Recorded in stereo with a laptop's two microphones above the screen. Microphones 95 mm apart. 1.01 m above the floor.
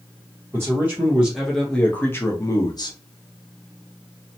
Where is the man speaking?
25° right (ahead or behind), 1.0 m; by 3.0 s 50° left (ahead or behind), 1.0 m.